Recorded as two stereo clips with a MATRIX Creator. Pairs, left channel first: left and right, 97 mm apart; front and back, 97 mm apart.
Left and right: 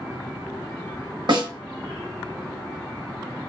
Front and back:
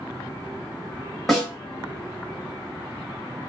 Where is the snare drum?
90° right, 1.2 m.